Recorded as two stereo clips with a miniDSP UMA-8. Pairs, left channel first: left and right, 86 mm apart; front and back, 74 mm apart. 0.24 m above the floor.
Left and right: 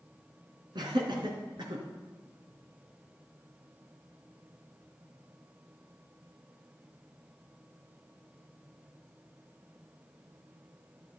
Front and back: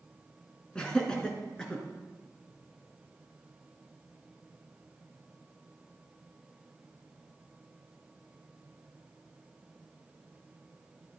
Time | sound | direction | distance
0.8 | laughter | 75° right | 3 m